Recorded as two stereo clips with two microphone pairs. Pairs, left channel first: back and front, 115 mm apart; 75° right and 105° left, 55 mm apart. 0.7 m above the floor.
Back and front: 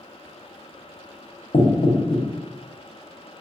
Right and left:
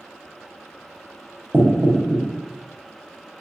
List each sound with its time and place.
1.5 s knocking: 155° left, 0.6 m